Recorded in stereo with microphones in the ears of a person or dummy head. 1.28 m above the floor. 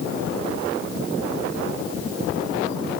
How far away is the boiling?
I don't hear boiling.